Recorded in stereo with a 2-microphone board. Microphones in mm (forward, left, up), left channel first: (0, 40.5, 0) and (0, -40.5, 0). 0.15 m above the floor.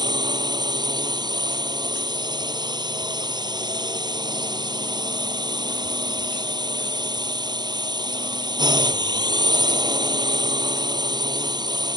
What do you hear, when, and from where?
0.0 s a drone: 70° right (ahead or behind)